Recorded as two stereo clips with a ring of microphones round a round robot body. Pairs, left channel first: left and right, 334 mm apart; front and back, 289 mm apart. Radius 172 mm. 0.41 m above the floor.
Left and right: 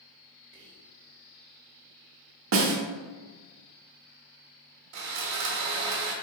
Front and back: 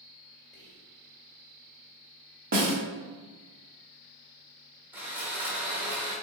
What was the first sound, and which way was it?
Whispering, 125° right.